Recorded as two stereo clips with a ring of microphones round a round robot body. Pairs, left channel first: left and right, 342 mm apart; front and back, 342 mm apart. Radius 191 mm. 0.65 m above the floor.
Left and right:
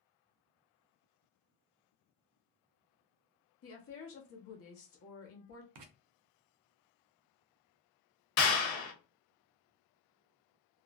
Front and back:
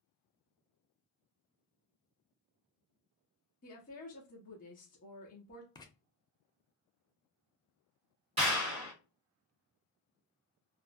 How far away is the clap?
About 1.0 m.